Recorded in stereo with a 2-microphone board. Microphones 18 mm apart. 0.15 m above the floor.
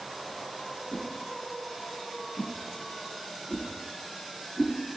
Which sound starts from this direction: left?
A whoosh, at 0.9 s.